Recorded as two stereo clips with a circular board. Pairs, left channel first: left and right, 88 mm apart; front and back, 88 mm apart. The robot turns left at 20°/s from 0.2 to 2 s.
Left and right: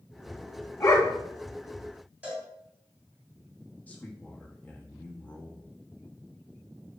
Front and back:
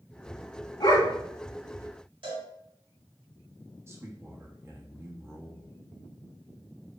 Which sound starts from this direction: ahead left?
A dog barking, at 0.8 s.